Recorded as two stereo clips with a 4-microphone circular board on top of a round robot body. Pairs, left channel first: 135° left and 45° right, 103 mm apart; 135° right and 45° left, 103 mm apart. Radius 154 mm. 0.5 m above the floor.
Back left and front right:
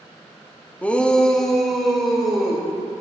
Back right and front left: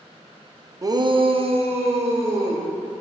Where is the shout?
70° left, 0.7 m; by 2.6 s 45° left, 2.5 m.